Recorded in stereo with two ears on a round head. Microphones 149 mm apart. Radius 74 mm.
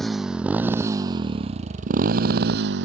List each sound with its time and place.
0.0 s a motorcycle: centre (ahead or behind); by 2.9 s 75° right (ahead or behind)